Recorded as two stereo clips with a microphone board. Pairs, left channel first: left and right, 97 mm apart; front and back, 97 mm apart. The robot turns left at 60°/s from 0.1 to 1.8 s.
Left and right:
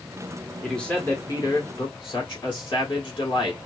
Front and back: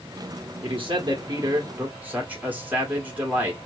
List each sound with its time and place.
0.6 s a man speaking: straight behind, 1.6 m; by 3.6 s 110° left, 1.6 m